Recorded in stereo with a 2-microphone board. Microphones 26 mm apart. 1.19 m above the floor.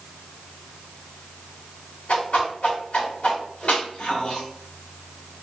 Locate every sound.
2.1 s a whoosh: 80° left, 1.7 m